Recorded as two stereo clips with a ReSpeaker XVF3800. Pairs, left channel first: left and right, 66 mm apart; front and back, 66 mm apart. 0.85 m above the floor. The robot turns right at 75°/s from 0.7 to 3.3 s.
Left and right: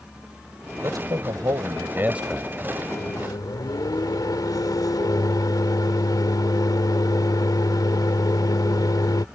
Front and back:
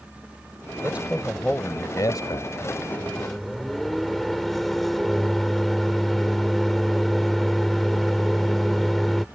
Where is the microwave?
60° left; by 9.2 s 90° left.